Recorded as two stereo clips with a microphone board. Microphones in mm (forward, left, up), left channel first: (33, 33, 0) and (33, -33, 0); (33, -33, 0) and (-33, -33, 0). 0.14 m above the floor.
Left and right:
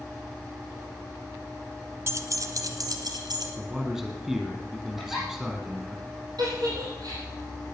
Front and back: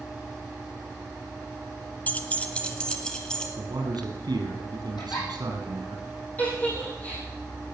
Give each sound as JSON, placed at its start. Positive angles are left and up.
{"t": 2.1, "sound": "keys jangling", "azimuth_deg": -55, "distance_m": 1.0}
{"t": 3.6, "sound": "a man speaking", "azimuth_deg": -170, "distance_m": 4.0}
{"t": 5.0, "sound": "a giggle", "azimuth_deg": -5, "distance_m": 6.0}
{"t": 6.4, "sound": "a giggle", "azimuth_deg": -65, "distance_m": 6.0}